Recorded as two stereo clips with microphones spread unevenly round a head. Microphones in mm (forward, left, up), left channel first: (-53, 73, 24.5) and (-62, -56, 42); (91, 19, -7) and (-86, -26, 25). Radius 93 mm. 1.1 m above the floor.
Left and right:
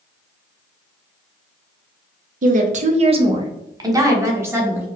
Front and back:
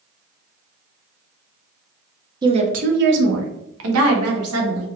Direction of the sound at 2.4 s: 95° right.